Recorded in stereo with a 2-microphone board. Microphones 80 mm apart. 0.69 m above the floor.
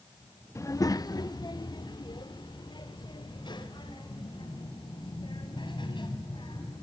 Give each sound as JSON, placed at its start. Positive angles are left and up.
{"t": 0.6, "sound": "a child speaking", "side_deg": 40, "distance_m": 0.7}